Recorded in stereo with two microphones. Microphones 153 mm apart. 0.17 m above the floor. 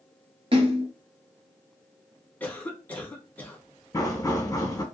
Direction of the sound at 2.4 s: 10° left (ahead or behind).